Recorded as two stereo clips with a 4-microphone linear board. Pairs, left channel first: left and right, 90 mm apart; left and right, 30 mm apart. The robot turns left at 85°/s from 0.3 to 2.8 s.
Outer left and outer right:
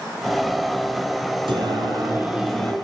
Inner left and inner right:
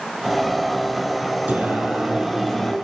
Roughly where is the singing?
Right.